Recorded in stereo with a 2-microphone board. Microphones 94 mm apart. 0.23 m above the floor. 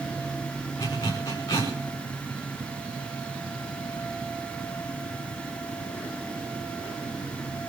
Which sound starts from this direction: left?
A zipper, at 0.8 s.